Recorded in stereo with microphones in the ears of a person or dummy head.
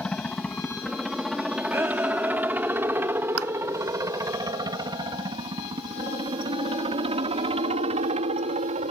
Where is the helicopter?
5° left (ahead or behind); by 8.9 s 40° right (ahead or behind).